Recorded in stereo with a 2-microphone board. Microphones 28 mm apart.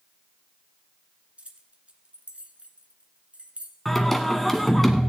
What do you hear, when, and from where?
1.4 s keys jangling: 45° right (ahead or behind), 1.5 m
3.9 s singing: 10° left (ahead or behind), 1.4 m